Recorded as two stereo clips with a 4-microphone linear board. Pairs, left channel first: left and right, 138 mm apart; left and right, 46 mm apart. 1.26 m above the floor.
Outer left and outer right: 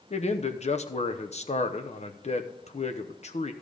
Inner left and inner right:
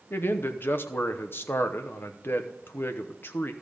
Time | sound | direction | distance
0.1 | a man speaking | 50° left (ahead or behind) | 0.8 m